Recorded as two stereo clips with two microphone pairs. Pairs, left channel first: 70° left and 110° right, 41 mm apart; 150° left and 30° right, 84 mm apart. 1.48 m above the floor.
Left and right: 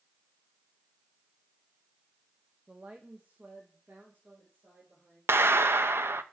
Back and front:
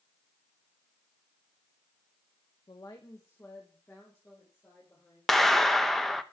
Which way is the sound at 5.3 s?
125° right.